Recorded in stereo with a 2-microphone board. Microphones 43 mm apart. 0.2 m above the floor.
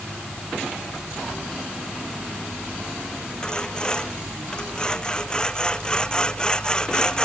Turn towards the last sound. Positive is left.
turn(degrees=15)  # may be behind; listen again after turning